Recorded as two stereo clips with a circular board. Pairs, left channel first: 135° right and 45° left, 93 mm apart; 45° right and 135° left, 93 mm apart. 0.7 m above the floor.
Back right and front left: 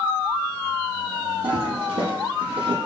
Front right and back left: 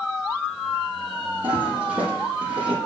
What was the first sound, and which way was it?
A toilet flushing, 60° left.